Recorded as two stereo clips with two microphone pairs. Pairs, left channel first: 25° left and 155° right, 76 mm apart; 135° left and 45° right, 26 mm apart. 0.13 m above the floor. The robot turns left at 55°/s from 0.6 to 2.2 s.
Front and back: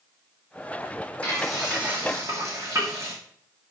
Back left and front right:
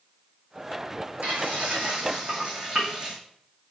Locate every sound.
1.2 s frying: 50° right, 3.5 m; by 3.1 s 100° right, 3.5 m